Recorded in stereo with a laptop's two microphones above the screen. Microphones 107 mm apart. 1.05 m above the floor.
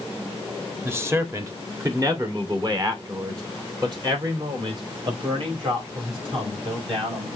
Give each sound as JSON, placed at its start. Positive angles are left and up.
{"t": 0.8, "sound": "a man speaking", "side_deg": -20, "distance_m": 1.7}